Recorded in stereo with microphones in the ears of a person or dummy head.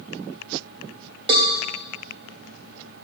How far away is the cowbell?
About 0.7 m.